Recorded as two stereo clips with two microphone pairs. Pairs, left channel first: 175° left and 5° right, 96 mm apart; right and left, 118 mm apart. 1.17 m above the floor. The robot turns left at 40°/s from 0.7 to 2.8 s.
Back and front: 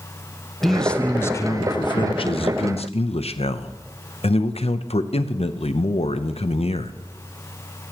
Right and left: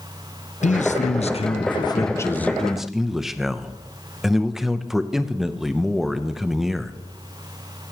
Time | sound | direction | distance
0.6 | a man speaking | 100° right | 0.7 m